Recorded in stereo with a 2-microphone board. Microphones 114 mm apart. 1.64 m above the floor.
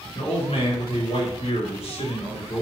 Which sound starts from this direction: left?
A man speaking, at 0.1 s.